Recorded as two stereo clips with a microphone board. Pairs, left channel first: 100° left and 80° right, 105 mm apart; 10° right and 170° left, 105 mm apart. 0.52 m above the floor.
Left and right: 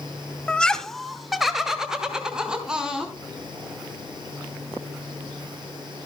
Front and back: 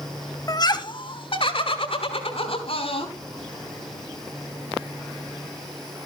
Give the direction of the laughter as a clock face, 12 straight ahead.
11 o'clock.